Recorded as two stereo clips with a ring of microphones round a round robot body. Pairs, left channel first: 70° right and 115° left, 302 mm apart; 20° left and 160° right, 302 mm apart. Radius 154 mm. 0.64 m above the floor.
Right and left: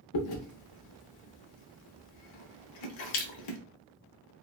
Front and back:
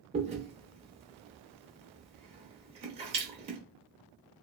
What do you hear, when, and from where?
0.1 s chewing: 85° right, 0.7 m